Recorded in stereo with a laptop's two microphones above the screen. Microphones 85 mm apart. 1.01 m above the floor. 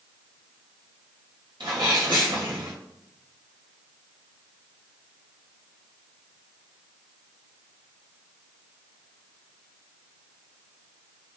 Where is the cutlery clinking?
No cutlery clinking in this recording.